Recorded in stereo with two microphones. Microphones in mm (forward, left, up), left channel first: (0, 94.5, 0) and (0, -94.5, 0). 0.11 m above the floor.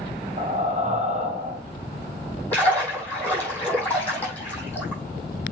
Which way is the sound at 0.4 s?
35° right (ahead or behind).